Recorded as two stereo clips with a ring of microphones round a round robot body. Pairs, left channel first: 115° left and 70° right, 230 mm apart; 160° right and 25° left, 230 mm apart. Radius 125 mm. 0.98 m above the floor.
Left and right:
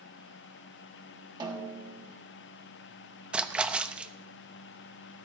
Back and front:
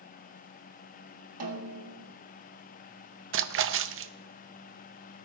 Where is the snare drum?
5° left, 1.7 m.